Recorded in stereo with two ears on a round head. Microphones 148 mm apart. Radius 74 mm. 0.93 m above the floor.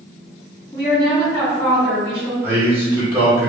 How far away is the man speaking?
About 1.1 m.